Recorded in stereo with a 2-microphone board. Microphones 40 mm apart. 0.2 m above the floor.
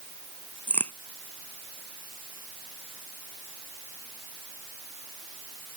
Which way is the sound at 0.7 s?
45° left (ahead or behind).